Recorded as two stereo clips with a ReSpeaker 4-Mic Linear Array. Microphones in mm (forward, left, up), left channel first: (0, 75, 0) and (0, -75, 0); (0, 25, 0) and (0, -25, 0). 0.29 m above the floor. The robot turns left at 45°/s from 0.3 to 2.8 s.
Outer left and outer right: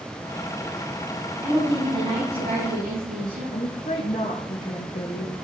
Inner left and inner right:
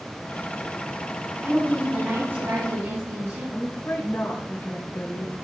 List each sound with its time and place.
1.4 s a woman speaking: 25° right, 4.5 m; by 3.4 s 85° right, 4.5 m
3.5 s a woman speaking: 65° left (ahead or behind), 3 m